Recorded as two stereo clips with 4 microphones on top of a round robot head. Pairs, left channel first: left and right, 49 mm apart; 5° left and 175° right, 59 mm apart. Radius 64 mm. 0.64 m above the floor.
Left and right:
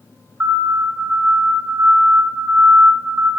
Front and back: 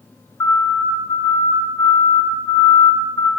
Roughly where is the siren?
Ahead right.